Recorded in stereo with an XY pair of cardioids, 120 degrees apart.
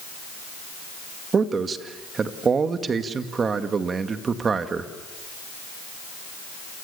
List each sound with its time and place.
1.3 s a man speaking: 35° right, 2 m